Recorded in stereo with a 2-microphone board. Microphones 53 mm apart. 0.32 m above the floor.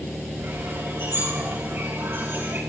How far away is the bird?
About 8.5 m.